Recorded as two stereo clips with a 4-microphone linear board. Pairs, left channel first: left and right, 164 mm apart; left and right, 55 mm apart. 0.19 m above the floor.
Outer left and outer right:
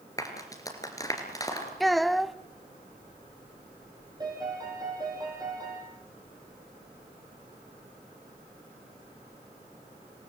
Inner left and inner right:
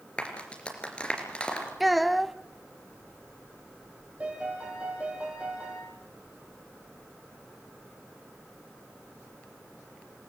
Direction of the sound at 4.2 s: 25° right (ahead or behind).